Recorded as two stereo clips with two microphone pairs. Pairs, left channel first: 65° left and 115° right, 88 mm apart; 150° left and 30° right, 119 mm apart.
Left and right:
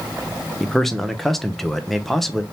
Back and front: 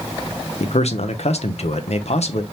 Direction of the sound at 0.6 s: 150° left.